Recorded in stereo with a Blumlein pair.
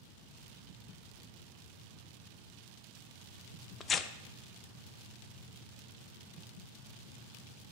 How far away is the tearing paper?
About 0.7 m.